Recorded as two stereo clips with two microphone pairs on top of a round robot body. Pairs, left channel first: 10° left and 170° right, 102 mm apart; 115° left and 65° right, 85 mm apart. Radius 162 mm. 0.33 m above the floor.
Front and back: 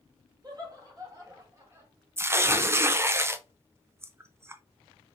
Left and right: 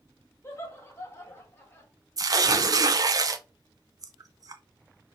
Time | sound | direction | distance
0.4 | laughter | 165° left | 2.0 m
2.2 | tearing paper | 105° right | 0.5 m